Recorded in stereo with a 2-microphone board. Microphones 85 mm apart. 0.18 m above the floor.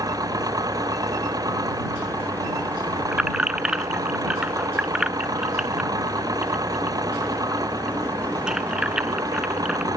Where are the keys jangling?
10° right (ahead or behind).